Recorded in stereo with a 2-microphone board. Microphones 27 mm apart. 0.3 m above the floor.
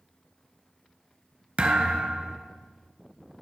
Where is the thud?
45° right (ahead or behind), 1.3 m.